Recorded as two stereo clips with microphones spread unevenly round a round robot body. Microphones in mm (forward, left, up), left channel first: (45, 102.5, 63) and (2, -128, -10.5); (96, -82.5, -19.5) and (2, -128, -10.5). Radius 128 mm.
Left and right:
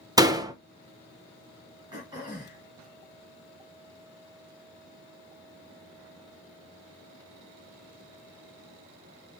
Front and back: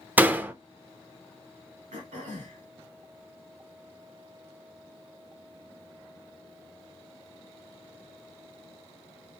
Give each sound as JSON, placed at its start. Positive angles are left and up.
{"t": 0.2, "sound": "a door slam", "azimuth_deg": -85, "distance_m": 0.6}
{"t": 1.9, "sound": "throat clearing", "azimuth_deg": -175, "distance_m": 1.8}